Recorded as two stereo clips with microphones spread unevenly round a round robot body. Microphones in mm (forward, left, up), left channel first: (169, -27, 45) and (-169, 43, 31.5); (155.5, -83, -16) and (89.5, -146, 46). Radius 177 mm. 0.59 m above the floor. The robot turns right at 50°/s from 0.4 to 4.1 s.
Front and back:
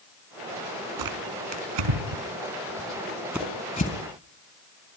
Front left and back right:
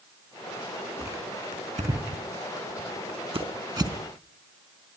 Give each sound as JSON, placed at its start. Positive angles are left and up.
{"t": 1.0, "sound": "tearing paper", "azimuth_deg": 135, "distance_m": 4.5}